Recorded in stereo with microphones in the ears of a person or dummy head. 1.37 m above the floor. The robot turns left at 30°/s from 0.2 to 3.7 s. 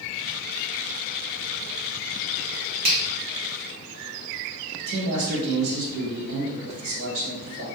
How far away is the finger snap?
About 1.0 m.